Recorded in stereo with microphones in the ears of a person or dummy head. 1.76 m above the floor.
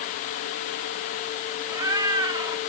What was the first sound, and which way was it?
A cat meowing, 20° right (ahead or behind).